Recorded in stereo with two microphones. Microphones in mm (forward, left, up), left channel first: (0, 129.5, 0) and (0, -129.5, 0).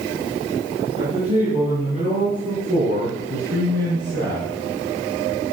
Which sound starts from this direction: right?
A man speaking, at 1.0 s.